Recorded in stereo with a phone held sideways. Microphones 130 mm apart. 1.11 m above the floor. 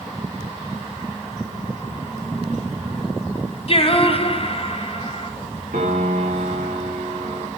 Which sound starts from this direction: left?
Singing, at 3.7 s.